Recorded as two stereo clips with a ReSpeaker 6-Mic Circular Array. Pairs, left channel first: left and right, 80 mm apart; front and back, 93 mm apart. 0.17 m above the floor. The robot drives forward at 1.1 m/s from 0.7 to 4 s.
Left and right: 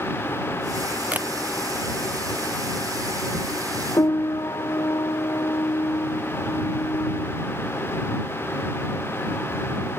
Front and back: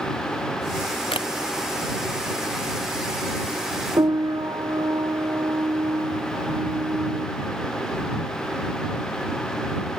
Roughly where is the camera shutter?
Ahead.